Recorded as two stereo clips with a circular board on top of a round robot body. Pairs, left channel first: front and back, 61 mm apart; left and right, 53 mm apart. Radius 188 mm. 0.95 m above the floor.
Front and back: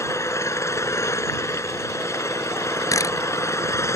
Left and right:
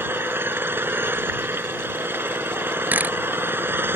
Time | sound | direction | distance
0.0 | an engine running | 40° right | ?
2.9 | a camera shutter | 30° right | ?